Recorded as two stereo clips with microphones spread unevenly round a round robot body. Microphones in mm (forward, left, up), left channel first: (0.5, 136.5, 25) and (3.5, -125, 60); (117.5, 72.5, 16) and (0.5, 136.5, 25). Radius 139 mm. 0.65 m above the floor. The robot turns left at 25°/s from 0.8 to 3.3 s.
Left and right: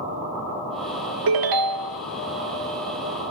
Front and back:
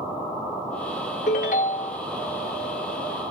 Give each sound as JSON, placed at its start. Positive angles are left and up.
{"t": 1.3, "sound": "a ringtone", "azimuth_deg": -80, "distance_m": 0.5}